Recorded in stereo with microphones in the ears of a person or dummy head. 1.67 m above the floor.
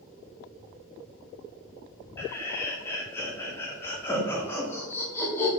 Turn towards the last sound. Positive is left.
turn(degrees=10)  # may be behind; listen again after turning